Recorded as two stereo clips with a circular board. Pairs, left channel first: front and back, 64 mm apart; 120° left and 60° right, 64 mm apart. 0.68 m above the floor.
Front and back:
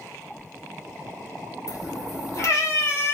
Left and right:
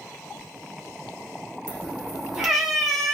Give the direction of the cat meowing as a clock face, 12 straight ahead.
12 o'clock.